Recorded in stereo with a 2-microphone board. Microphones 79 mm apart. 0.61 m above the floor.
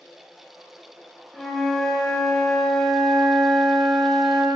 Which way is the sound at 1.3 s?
5° left (ahead or behind).